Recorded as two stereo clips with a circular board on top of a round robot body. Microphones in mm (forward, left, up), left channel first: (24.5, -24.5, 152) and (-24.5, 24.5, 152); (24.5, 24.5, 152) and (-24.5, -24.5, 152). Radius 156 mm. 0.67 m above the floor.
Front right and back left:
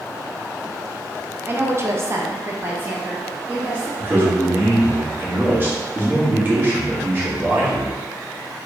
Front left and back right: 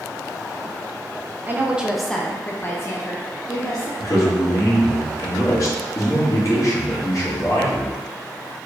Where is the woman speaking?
175° left, 1.0 m; by 3.9 s 65° left, 1.8 m.